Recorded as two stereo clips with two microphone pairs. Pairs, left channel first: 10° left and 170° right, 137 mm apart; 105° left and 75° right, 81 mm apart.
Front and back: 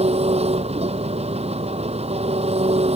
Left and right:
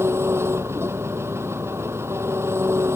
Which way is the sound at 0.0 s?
130° right.